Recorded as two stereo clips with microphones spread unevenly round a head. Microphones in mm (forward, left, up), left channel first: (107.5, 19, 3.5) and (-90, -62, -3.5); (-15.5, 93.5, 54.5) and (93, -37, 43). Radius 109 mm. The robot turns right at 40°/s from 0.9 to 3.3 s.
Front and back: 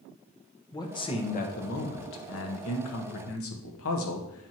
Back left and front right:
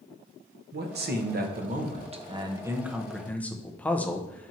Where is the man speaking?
50° right, 1.1 m; by 4.5 s 45° left, 1.1 m.